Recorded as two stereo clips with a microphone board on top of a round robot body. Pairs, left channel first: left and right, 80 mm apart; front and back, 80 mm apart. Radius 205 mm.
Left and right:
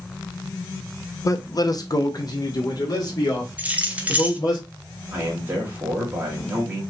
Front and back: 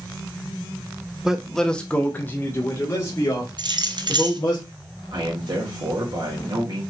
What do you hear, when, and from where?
1.2 s a man speaking: 100° left, 0.8 m; by 4.6 s 45° left, 2.5 m
3.6 s keys jangling: 160° right, 0.9 m
5.1 s a man speaking: 155° right, 2.5 m